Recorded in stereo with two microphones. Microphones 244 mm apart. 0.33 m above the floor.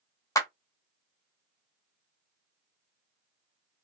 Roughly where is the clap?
Centre.